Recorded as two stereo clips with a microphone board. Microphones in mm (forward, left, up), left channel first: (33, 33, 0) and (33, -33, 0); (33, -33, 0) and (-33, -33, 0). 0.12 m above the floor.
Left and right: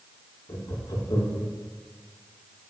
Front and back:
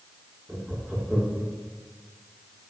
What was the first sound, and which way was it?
Laughter, 110° left.